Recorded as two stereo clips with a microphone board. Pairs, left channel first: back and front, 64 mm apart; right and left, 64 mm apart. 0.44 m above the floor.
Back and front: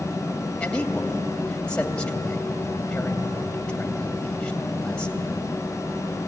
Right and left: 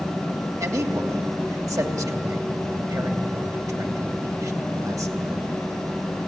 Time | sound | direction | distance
0.6 | a man speaking | 110° left | 2.5 m